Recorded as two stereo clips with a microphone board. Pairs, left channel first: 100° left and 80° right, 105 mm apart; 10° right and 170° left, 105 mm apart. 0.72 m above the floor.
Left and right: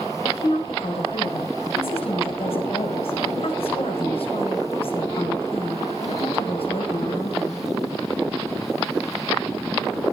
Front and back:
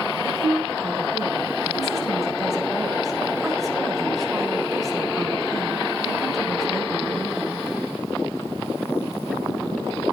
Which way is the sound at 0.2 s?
80° left.